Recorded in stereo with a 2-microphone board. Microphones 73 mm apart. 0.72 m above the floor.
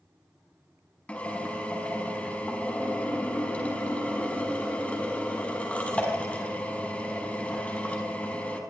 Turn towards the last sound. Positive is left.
turn(degrees=20)  # may be behind; listen again after turning